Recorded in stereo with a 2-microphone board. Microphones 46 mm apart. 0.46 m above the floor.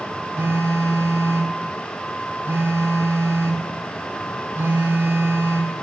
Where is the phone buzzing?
55° right (ahead or behind), 2.5 m.